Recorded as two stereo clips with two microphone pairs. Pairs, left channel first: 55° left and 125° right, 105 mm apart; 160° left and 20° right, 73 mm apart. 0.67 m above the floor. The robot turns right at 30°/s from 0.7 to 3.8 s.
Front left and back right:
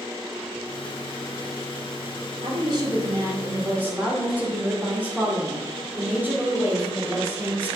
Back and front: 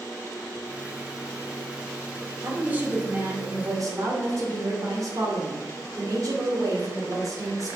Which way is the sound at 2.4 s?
95° right.